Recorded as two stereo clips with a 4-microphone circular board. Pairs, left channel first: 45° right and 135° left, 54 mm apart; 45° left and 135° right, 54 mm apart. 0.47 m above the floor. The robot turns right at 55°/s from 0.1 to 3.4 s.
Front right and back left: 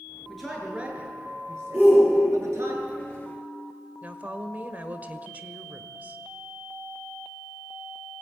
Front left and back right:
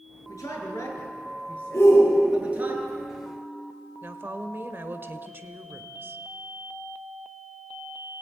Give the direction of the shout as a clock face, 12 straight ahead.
10 o'clock.